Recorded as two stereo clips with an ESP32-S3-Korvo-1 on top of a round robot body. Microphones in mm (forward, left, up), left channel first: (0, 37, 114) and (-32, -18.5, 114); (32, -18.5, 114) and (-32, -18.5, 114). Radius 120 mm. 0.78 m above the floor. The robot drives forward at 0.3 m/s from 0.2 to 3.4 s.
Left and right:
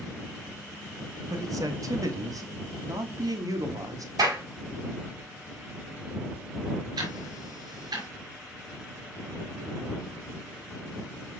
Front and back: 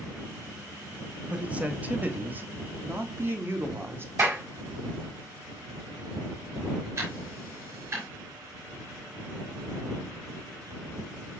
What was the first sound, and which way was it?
A man speaking, 110° right.